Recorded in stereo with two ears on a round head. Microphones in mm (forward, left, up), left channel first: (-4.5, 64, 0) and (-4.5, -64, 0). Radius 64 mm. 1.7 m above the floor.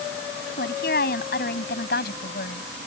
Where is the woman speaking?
70° left (ahead or behind); by 2.7 s 75° left (ahead or behind).